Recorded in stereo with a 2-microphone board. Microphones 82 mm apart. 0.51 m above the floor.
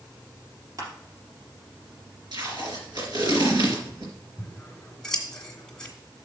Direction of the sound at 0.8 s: 50° right (ahead or behind).